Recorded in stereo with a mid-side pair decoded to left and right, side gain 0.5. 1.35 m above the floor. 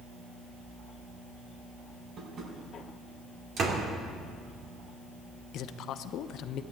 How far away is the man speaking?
About 0.9 m.